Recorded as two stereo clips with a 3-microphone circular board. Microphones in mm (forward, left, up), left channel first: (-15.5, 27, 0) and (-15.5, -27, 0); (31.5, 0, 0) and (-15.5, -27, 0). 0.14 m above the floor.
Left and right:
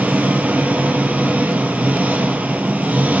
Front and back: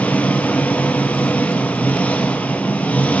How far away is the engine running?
About 2.5 m.